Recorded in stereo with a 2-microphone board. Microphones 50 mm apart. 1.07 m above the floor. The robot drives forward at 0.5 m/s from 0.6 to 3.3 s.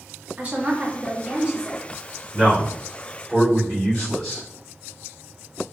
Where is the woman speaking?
30° right (ahead or behind), 1.3 m; by 1.8 s 20° right (ahead or behind), 1.9 m.